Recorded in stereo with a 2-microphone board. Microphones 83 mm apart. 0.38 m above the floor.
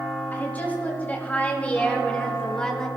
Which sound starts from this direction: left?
A woman speaking, at 0.3 s.